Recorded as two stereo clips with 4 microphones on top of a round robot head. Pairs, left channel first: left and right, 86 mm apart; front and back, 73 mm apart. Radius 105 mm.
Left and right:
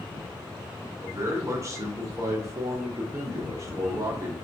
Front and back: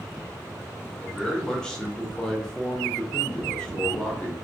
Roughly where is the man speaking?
Right.